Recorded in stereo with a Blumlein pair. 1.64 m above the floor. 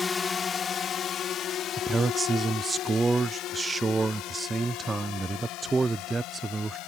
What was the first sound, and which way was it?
A drone, 15° left.